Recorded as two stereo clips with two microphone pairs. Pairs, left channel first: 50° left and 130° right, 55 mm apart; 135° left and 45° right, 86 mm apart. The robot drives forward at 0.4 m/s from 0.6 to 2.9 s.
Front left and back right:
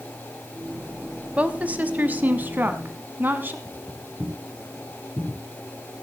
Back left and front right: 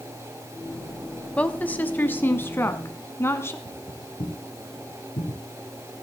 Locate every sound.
1.4 s a woman speaking: 170° right, 1.0 m; by 3.5 s 175° right, 1.4 m
3.6 s footsteps: 165° left, 5 m; by 5.4 s 150° left, 6.5 m